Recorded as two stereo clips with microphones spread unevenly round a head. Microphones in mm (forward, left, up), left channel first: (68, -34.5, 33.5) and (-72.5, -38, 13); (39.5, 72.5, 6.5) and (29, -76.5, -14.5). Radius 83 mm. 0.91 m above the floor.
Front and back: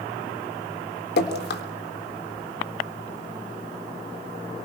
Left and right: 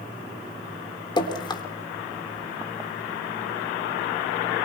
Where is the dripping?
25° left, 3 m.